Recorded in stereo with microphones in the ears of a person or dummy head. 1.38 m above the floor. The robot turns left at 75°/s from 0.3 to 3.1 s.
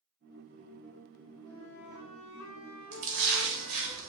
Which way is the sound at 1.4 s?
160° left.